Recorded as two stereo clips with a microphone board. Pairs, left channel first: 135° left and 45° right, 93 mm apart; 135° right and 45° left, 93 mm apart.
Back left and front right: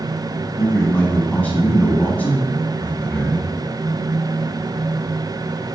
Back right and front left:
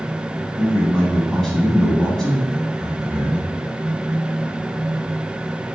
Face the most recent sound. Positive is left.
turn(degrees=155)